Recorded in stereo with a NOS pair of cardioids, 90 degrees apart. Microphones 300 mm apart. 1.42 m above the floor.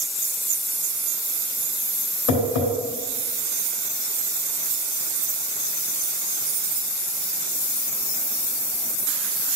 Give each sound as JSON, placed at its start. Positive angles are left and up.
{"t": 2.3, "sound": "tapping", "azimuth_deg": 70, "distance_m": 3.5}